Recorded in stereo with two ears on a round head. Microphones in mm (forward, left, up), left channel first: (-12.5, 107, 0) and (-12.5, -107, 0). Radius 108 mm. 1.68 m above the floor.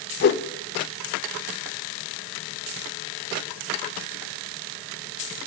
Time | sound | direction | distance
0.2 | a whoosh | 40° left (ahead or behind) | 0.5 m